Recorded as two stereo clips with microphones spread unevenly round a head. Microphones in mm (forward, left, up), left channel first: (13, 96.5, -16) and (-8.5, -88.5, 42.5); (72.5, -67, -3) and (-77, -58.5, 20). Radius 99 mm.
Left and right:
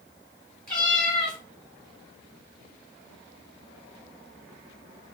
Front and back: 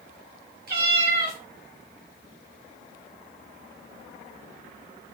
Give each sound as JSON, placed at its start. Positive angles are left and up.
{"t": 0.7, "sound": "a cat meowing", "azimuth_deg": 175, "distance_m": 1.8}